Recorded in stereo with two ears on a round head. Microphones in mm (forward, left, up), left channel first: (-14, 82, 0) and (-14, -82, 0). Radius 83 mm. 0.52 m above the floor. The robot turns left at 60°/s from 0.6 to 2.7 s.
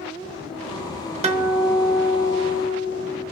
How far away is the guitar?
About 0.7 m.